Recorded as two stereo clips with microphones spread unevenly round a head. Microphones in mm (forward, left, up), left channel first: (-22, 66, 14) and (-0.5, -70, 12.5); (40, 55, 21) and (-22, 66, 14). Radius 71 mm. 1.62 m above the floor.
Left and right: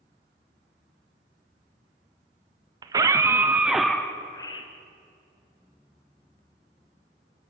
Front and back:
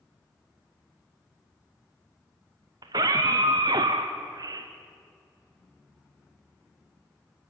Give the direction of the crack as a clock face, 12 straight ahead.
No crack in this recording.